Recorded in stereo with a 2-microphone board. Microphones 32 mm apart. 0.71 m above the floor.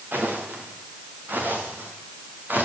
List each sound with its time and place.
0.1 s footsteps: 85° right, 5.5 m; by 2.7 s 70° right (ahead or behind), 7 m